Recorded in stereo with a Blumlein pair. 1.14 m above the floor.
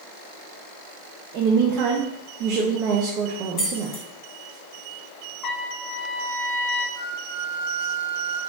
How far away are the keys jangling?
About 1.8 m.